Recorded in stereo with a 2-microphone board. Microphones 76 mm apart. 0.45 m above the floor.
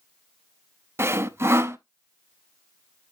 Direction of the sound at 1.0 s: 35° right (ahead or behind).